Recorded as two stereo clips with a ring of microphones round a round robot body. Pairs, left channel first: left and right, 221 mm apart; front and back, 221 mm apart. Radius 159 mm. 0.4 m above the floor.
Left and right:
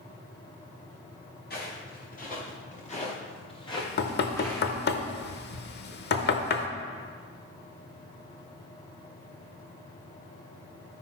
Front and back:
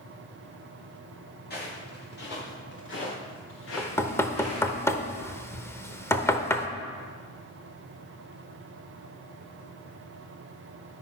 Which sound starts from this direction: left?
Knocking, at 3.8 s.